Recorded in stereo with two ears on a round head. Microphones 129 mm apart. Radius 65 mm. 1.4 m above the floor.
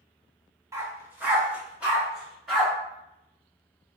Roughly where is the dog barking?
Centre.